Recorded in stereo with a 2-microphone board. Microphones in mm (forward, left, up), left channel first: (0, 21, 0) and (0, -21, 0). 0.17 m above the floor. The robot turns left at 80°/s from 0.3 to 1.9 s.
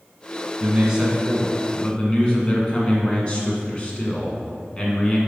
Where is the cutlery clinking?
No cutlery clinking in this recording.